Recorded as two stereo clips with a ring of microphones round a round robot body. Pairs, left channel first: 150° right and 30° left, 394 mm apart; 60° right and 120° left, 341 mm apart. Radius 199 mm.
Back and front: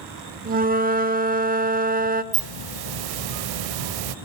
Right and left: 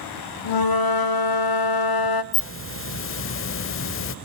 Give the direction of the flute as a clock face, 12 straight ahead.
1 o'clock.